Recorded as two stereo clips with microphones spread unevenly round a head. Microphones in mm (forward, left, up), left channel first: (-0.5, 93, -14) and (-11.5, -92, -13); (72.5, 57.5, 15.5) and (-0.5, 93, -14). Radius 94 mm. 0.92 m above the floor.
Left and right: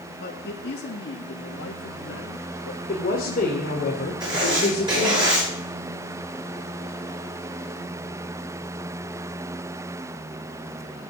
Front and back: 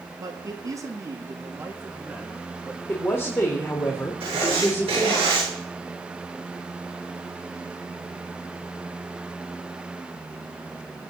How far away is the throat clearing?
I don't hear throat clearing.